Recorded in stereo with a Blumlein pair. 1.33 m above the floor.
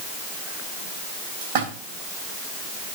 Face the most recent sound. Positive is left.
turn(degrees=-50)